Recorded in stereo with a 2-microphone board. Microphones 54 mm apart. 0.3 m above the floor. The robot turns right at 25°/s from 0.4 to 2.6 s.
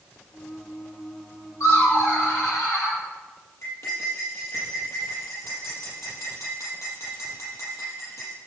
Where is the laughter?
80° left, 7.5 m; by 3.0 s 70° left (ahead or behind), 7.5 m.